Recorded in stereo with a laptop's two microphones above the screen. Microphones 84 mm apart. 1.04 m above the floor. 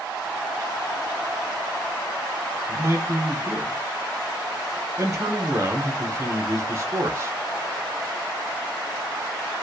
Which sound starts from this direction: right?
A man speaking, at 2.7 s.